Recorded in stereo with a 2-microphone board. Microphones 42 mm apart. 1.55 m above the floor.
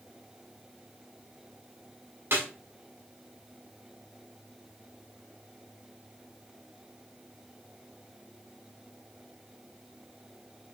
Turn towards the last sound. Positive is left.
turn(degrees=-55)  # may be behind; listen again after turning